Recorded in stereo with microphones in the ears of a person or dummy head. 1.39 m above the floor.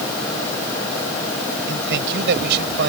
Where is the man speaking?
65° right (ahead or behind).